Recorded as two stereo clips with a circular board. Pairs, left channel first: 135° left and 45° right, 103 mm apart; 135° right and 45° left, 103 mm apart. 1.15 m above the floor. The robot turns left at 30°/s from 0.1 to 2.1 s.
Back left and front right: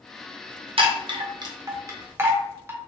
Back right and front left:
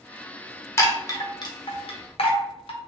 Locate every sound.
0.8 s a chime: 70° right, 0.7 m; by 2.8 s 110° right, 0.7 m